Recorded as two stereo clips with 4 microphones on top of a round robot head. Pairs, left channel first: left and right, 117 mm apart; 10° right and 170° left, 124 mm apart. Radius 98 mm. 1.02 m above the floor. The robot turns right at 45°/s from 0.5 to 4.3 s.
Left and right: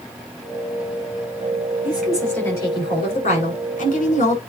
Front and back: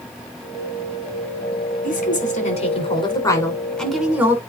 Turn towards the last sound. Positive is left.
turn(degrees=95)